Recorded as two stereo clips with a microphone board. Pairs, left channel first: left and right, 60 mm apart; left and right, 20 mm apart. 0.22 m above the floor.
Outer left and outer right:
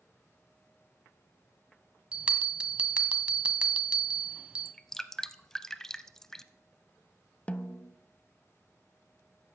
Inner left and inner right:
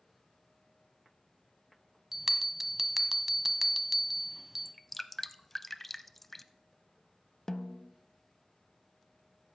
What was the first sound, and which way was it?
A bell, 20° right (ahead or behind).